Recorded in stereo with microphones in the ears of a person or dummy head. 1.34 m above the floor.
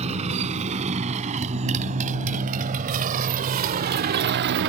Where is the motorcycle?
35° right (ahead or behind); by 4.7 s 60° right (ahead or behind).